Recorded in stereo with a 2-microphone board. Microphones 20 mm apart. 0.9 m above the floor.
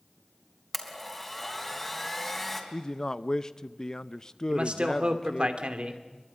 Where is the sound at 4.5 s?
65° right (ahead or behind), 2.5 m.